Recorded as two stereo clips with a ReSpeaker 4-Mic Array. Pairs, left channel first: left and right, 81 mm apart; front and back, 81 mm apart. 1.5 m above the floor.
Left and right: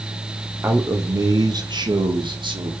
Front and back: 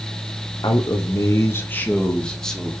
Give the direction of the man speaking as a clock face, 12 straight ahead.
1 o'clock.